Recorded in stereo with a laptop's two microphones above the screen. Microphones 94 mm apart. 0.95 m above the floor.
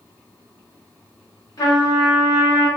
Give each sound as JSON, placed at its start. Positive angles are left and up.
{"t": 1.6, "sound": "a trumpet", "side_deg": 40, "distance_m": 1.0}